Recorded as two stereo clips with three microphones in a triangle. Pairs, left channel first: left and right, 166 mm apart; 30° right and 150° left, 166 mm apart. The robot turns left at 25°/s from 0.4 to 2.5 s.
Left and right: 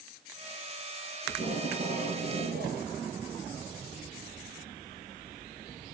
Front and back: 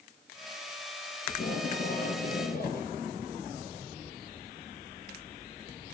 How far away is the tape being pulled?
About 2 m.